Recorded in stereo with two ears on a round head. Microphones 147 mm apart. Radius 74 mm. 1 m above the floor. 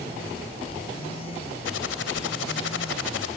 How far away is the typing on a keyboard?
About 3 m.